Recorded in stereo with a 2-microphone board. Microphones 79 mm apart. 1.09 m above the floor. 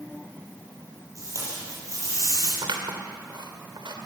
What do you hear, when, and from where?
1.1 s tape being pulled: 40° right (ahead or behind), 9 m
2.6 s scissors: 70° right (ahead or behind), 2.5 m